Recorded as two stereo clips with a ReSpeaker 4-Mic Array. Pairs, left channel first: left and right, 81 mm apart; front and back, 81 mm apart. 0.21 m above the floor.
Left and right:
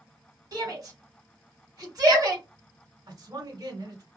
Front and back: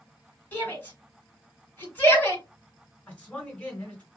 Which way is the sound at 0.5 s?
65° right.